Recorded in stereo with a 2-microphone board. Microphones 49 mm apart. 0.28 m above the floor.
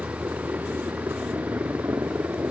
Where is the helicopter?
45° right (ahead or behind); by 2.5 s 55° right (ahead or behind).